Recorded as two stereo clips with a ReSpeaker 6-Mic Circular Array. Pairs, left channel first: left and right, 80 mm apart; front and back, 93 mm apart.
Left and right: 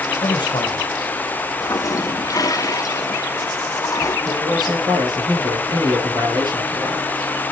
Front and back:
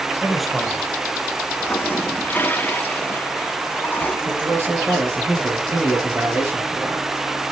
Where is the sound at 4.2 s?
115° right, 5.5 m.